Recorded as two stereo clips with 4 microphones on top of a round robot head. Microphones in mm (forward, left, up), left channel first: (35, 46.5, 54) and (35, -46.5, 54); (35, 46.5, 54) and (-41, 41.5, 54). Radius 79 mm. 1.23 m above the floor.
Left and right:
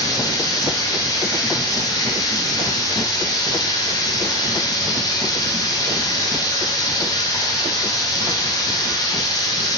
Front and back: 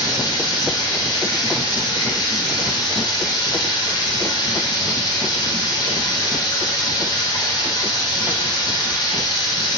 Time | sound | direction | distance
0.0 | running water | 40° left | 1.5 m